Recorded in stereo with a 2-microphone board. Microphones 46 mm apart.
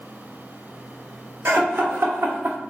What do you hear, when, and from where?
1.4 s laughter: 70° right (ahead or behind), 1.8 m; by 2.6 s 45° right (ahead or behind), 0.7 m